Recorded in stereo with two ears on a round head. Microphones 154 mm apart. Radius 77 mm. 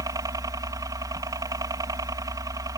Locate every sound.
0.0 s a helicopter: 20° right (ahead or behind)